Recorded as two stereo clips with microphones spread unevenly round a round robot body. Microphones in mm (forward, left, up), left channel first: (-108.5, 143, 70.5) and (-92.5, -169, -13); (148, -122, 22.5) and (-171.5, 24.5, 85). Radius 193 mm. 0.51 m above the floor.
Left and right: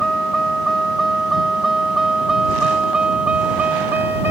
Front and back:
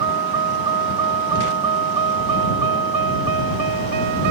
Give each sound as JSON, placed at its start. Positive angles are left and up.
{"t": 0.0, "sound": "a vehicle", "azimuth_deg": 180}